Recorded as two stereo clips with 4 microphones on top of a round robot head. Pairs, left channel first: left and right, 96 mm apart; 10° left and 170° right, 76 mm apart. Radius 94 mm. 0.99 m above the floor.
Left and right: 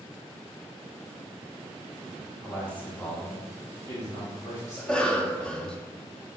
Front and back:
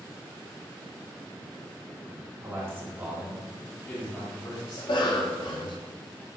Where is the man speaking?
165° left, 1.0 m; by 5.8 s 35° left, 1.9 m.